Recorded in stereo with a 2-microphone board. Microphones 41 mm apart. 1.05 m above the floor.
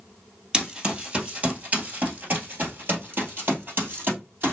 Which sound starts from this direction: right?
Running footsteps, at 0.5 s.